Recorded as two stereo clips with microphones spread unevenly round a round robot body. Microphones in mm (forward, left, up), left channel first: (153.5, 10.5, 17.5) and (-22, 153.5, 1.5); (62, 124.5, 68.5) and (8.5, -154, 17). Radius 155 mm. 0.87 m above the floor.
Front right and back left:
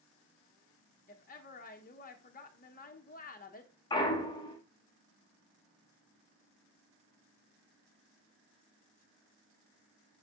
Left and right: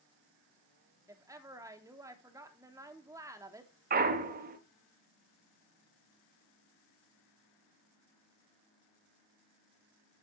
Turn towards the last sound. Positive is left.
turn(degrees=-110)